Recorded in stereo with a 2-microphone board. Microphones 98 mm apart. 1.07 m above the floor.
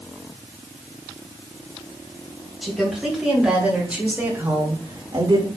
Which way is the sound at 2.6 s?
Centre (ahead or behind).